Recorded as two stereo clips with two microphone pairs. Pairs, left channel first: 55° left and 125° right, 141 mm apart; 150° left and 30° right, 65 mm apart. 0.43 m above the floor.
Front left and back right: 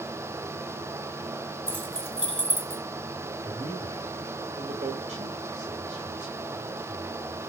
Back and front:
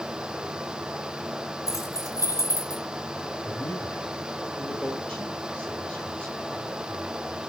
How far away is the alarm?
I don't hear an alarm.